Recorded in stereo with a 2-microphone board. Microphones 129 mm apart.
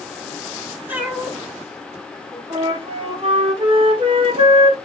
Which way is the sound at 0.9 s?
15° right (ahead or behind).